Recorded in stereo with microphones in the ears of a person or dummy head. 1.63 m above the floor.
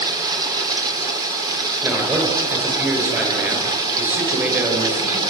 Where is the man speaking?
10° right (ahead or behind), 8 m.